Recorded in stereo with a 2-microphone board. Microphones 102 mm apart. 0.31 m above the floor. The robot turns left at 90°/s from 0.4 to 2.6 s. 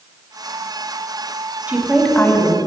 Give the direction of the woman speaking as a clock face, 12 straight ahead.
5 o'clock.